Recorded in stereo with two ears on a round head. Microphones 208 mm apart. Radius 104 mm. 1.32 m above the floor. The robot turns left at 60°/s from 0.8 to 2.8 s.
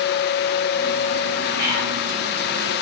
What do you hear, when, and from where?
1.6 s whispering: 55° left (ahead or behind), 1.9 m; by 1.9 s 70° left (ahead or behind), 1.9 m